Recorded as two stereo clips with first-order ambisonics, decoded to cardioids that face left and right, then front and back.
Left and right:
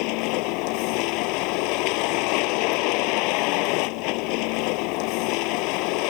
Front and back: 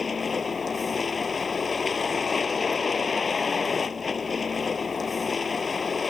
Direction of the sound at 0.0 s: 70° left.